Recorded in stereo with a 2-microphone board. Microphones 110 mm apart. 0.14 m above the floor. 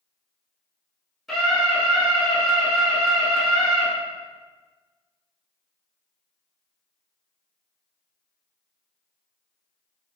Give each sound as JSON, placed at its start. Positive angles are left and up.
{"t": 1.3, "sound": "a scream", "side_deg": 0, "distance_m": 1.2}